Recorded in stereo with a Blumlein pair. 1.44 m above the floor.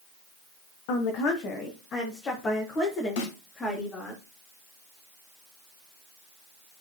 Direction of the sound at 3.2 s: 55° left.